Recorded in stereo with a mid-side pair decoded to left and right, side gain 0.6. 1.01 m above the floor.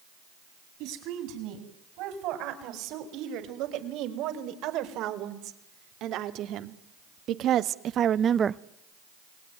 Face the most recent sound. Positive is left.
turn(degrees=-25)